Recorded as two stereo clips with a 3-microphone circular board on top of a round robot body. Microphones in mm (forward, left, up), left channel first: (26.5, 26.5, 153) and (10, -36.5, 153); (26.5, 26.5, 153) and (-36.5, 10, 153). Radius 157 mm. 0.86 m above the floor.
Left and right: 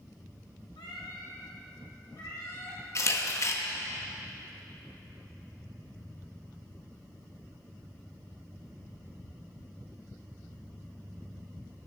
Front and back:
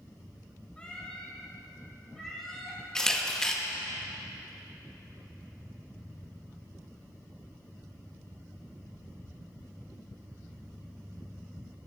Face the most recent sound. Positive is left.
turn(degrees=95)